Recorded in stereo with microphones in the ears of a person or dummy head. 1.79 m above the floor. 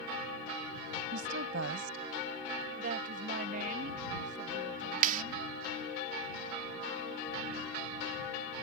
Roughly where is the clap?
Right.